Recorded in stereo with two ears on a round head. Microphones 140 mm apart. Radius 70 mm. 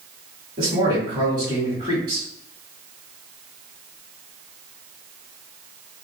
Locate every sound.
0.6 s a man speaking: 30° right (ahead or behind), 1.6 m